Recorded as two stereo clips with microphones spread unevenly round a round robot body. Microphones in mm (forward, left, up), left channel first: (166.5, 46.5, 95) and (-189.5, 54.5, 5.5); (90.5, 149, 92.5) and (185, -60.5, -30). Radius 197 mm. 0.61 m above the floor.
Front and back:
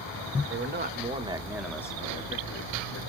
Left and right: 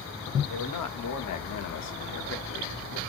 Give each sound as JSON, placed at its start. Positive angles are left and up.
{"t": 0.5, "sound": "a man speaking", "azimuth_deg": 135, "distance_m": 1.4}